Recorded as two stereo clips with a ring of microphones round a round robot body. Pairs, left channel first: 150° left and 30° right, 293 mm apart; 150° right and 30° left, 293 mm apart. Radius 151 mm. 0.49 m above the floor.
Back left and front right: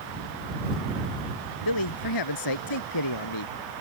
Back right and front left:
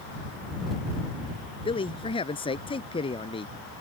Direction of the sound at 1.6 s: 135° left.